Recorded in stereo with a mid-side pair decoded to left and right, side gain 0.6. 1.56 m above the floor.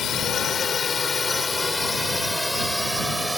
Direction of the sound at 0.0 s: 45° left.